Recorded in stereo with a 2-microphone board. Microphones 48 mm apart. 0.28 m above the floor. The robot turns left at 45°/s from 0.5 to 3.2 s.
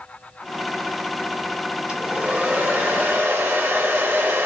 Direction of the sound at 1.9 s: 30° right.